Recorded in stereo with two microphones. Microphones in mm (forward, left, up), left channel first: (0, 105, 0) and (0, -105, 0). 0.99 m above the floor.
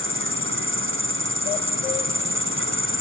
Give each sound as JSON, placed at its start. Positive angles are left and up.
{"t": 0.0, "sound": "an insect", "side_deg": -70}